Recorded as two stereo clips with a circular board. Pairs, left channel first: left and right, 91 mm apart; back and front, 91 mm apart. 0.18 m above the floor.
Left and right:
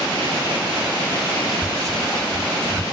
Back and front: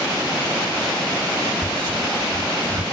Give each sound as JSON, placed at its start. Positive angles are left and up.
{"t": 1.6, "sound": "whispering", "azimuth_deg": 10, "distance_m": 2.5}